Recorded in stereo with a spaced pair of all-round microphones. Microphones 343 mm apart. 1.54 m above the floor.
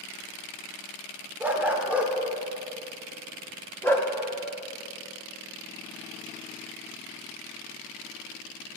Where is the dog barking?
5° right (ahead or behind), 1.8 m; by 4.1 s 10° left (ahead or behind), 1.2 m.